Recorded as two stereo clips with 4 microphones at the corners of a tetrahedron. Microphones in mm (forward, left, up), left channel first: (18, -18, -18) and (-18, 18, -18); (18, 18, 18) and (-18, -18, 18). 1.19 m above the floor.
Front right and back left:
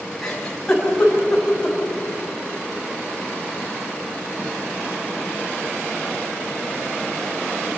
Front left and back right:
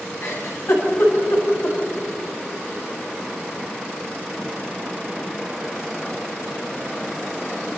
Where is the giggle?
30° left, 7.5 m.